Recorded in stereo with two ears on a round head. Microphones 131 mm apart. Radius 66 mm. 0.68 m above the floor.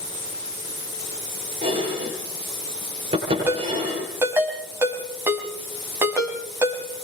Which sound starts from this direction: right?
Dishes clattering, at 1.6 s.